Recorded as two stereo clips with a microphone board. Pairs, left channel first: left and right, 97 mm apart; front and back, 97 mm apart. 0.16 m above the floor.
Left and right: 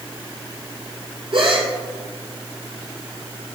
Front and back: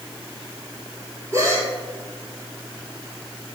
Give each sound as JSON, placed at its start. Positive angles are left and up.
{"t": 1.3, "sound": "a gasp", "azimuth_deg": -120, "distance_m": 1.7}